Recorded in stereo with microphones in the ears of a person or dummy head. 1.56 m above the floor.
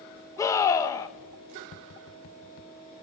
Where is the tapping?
40° left (ahead or behind), 0.8 m.